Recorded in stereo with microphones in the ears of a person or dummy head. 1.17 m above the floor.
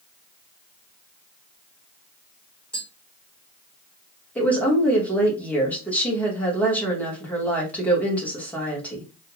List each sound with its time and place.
2.7 s tapping: 5° left (ahead or behind), 1.1 m
4.3 s a woman speaking: 10° left (ahead or behind), 1.0 m